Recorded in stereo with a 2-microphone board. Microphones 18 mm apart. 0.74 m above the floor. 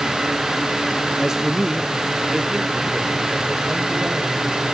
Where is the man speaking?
15° right (ahead or behind), 0.6 m; by 4.7 s 40° right (ahead or behind), 3.5 m.